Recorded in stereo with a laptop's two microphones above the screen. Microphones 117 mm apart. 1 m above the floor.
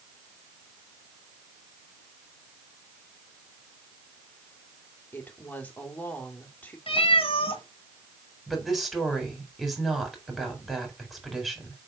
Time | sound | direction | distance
5.1 | a woman speaking | 15° left (ahead or behind) | 2.5 m
6.9 | a cat meowing | 55° left (ahead or behind) | 1.8 m
8.5 | a woman speaking | centre (ahead or behind) | 4 m